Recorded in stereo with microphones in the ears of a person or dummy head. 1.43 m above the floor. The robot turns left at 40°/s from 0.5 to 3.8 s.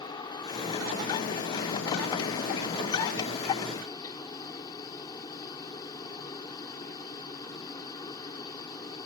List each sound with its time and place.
0.0 s a helicopter: 155° left; by 9.1 s 20° left